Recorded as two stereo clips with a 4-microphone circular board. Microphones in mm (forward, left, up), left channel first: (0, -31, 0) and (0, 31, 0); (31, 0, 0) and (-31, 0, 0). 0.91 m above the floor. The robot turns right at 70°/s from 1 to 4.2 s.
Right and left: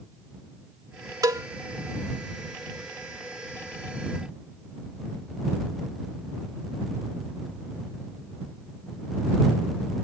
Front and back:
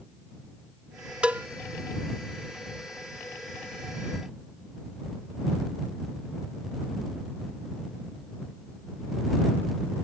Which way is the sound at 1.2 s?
110° left.